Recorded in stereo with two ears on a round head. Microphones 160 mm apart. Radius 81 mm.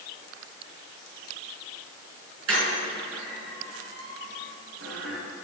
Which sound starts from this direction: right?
A squeak, at 2.5 s.